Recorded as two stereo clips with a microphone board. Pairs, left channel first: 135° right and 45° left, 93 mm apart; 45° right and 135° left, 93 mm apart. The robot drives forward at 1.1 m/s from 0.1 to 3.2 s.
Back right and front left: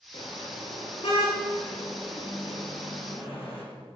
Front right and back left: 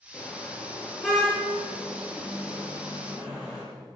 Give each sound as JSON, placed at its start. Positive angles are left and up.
{"t": 0.1, "sound": "a car horn", "azimuth_deg": -120, "distance_m": 5.0}